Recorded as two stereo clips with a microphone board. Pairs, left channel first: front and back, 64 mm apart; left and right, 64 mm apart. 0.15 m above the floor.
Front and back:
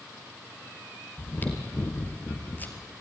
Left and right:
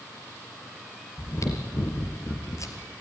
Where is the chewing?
60° left, 2.5 m.